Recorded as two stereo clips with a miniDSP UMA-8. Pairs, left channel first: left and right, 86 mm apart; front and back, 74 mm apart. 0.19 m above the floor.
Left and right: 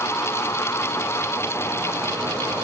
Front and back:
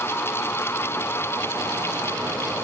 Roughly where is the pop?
No pop in this recording.